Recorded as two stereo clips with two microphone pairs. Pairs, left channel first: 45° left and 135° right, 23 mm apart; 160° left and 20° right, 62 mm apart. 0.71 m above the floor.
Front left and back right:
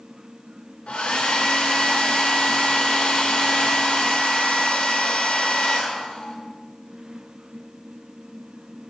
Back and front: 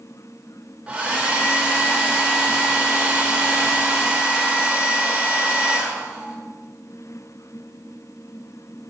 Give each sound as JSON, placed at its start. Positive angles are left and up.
{"t": 0.9, "sound": "a hair dryer", "azimuth_deg": 45, "distance_m": 0.7}